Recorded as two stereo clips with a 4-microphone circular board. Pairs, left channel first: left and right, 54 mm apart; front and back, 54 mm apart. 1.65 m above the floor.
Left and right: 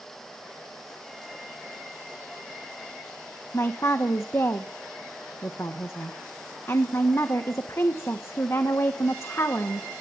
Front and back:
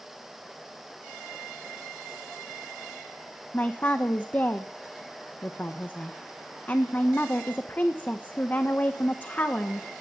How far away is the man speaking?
About 1.4 m.